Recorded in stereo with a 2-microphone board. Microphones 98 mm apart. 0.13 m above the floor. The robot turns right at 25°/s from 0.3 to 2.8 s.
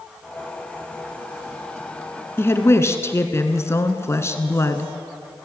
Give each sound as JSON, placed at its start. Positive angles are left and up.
{"t": 2.4, "sound": "a woman speaking", "side_deg": 25, "distance_m": 1.4}